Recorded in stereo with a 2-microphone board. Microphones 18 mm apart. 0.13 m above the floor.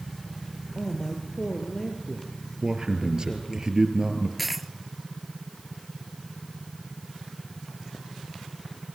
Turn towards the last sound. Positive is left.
turn(degrees=-5)  # may be behind; listen again after turning